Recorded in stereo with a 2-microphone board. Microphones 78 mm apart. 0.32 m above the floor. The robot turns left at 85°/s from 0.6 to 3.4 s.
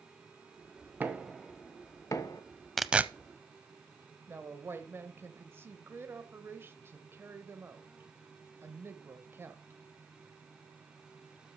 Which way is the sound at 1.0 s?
25° right (ahead or behind).